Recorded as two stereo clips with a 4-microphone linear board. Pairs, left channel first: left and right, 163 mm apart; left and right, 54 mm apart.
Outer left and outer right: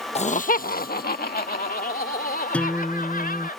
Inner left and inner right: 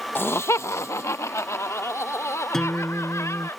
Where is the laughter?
40° left (ahead or behind); by 3.5 s 70° left (ahead or behind).